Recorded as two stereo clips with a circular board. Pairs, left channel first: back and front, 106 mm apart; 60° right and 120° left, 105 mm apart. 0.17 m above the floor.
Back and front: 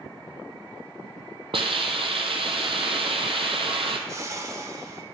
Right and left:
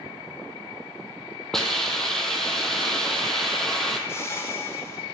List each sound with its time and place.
1.5 s a hiss: 25° left, 0.9 m
4.1 s a whoosh: 25° right, 0.8 m